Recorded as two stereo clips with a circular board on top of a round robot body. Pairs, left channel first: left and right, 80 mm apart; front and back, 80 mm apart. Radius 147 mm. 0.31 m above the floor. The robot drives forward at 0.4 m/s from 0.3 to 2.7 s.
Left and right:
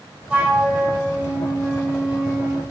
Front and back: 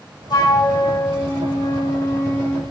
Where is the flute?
20° right, 1.7 m; by 2.6 s 50° right, 1.2 m.